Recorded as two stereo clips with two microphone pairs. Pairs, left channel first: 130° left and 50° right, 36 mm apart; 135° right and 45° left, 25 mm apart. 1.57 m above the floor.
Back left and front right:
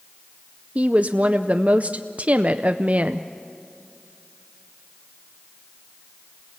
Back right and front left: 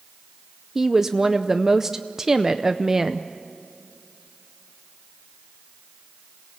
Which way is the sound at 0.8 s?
20° right.